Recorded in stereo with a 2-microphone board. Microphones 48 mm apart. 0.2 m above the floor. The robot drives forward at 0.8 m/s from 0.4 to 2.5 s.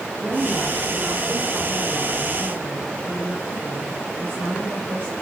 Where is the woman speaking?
40° right (ahead or behind), 7 m; by 5.1 s 50° right (ahead or behind), 5.5 m.